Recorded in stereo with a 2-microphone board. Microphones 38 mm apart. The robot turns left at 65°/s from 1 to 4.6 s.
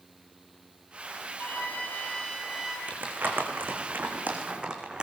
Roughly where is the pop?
I don't hear a pop.